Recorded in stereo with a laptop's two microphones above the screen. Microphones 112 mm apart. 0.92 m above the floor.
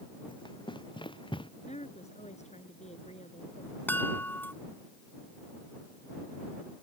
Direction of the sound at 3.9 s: 15° left (ahead or behind).